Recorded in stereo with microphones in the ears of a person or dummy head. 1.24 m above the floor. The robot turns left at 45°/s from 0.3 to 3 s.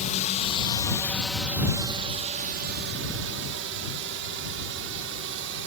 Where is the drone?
35° left (ahead or behind); by 5.7 s 70° right (ahead or behind).